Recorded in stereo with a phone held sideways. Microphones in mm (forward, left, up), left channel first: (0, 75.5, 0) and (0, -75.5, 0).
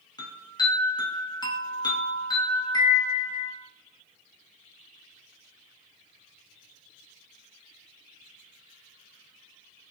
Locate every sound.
0.2 s a chime: 30° left (ahead or behind), 1.0 m